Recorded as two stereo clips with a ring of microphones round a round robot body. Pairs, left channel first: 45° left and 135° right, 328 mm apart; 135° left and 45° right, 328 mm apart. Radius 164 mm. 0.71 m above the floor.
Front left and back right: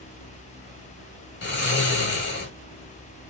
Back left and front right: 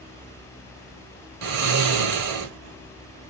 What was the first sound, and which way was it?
Snoring, 15° right.